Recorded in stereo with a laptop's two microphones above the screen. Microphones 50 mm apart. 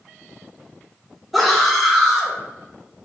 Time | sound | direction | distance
1.3 | a scream | centre (ahead or behind) | 1.9 m